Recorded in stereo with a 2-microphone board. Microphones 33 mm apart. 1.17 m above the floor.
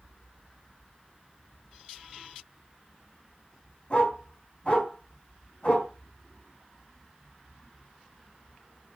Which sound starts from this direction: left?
A dog barking, at 3.9 s.